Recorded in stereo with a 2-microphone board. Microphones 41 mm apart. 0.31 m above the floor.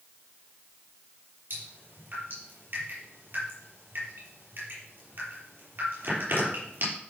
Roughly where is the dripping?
Right.